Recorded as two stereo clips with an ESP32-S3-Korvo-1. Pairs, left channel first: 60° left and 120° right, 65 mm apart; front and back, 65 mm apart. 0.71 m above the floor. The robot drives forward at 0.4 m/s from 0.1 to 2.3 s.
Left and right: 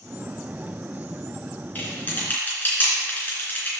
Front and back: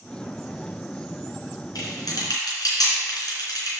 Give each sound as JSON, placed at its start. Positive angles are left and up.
{"t": 1.8, "sound": "typing on a keyboard", "azimuth_deg": 0, "distance_m": 3.0}